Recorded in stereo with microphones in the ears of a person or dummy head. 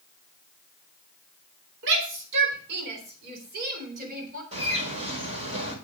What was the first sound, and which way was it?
A shout, 75° right (ahead or behind).